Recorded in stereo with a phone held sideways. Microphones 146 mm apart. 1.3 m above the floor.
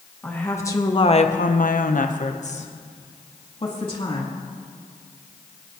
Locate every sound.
0.2 s a woman speaking: 10° left (ahead or behind), 1.5 m; by 4.2 s 35° left (ahead or behind), 3 m